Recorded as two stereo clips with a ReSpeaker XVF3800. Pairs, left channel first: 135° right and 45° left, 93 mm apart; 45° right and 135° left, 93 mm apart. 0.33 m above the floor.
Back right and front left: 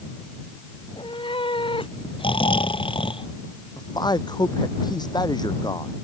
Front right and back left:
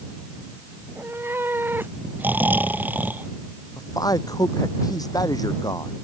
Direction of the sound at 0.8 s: 160° right.